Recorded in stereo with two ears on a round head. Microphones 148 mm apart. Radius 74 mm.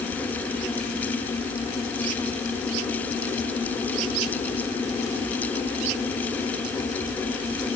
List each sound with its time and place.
Only background noise.